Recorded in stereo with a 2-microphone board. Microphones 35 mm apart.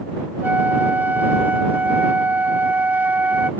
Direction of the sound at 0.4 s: 60° right (ahead or behind).